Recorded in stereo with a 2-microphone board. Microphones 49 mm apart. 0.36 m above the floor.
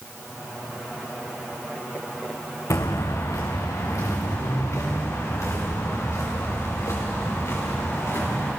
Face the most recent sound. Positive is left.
turn(degrees=55)  # may be behind; listen again after turning